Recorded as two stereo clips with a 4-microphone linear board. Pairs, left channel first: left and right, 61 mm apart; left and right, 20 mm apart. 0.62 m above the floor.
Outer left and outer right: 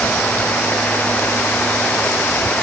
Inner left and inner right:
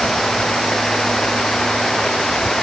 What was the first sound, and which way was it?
Only background noise.